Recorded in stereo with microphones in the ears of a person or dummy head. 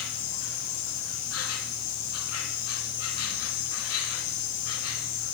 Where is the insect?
85° left, 3 m.